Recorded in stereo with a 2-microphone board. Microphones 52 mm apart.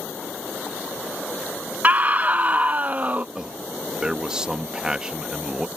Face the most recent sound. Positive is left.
turn(degrees=-15)  # may be behind; listen again after turning